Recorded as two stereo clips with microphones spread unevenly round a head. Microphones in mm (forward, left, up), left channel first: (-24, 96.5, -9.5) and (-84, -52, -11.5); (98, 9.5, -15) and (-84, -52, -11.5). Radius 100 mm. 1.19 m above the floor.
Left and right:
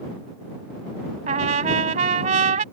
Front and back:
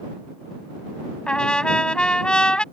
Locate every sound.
1.3 s a trumpet: 65° right